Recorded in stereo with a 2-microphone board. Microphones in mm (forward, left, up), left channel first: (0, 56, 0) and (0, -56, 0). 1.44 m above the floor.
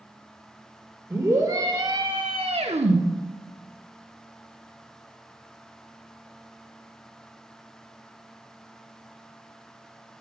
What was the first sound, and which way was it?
A scream, 25° right (ahead or behind).